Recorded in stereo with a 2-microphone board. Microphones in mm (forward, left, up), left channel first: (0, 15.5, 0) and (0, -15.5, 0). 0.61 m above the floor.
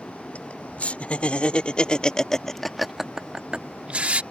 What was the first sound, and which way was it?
Laughter, 50° left (ahead or behind).